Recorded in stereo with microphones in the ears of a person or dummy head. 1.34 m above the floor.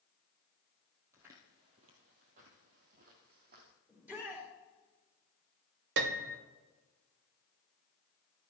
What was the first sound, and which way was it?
Footsteps, 10° right (ahead or behind).